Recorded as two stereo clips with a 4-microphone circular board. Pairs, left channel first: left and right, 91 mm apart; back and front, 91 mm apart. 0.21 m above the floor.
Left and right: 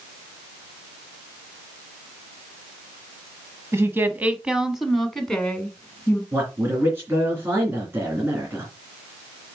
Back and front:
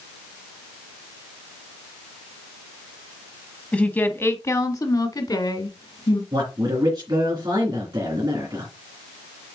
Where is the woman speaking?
115° right, 1.2 m; by 6.2 s 160° left, 2 m.